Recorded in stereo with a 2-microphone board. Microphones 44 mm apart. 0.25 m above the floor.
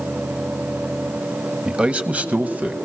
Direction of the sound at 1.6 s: 20° right (ahead or behind).